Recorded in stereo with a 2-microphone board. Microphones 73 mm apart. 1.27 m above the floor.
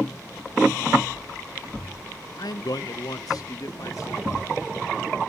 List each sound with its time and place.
2.4 s a man speaking: 70° left (ahead or behind), 0.5 m; by 4.5 s 50° left (ahead or behind), 2.5 m